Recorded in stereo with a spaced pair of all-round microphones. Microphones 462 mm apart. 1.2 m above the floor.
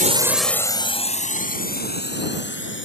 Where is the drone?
15° right (ahead or behind); by 2.9 s 25° left (ahead or behind).